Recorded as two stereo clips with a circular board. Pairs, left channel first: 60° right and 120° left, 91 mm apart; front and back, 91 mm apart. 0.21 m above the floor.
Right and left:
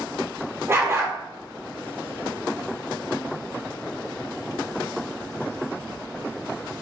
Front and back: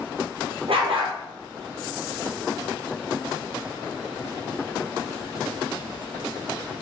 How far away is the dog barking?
About 1.7 m.